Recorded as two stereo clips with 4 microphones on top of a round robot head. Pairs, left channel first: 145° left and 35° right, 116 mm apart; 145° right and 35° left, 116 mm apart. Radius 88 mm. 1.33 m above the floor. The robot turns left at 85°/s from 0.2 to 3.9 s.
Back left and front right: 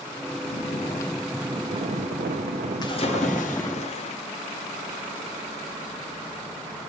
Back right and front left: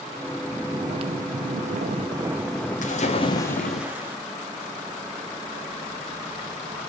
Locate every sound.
0.5 s snoring: 125° left, 0.9 m; by 3.8 s 160° right, 0.9 m
2.8 s a splash: 160° right, 3 m; by 4.2 s 110° left, 3 m